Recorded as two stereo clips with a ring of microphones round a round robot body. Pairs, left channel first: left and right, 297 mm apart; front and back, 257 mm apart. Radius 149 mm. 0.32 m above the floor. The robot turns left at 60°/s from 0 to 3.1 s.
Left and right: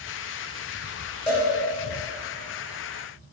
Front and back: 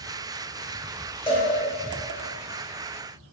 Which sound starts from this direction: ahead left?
A cowbell, at 1.3 s.